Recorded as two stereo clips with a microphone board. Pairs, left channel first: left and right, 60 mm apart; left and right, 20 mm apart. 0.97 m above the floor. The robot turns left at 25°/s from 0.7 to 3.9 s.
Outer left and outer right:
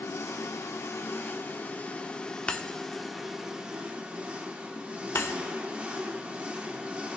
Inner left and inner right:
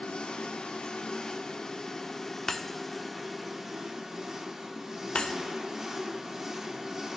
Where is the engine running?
55° left, 1.1 m; by 7.2 s 25° right, 1.1 m.